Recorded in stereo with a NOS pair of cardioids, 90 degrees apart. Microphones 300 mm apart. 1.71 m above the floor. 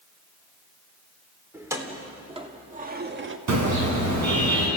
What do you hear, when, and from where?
1.5 s keys jangling: 10° right, 3 m; by 3.4 s 55° right, 1.6 m
3.5 s a car horn: 60° right, 9 m